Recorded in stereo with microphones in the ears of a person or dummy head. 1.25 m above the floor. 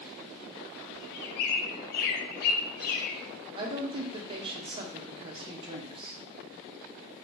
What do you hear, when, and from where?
0.9 s a bird: 55° left (ahead or behind), 0.6 m
3.5 s a woman speaking: 30° right (ahead or behind), 0.5 m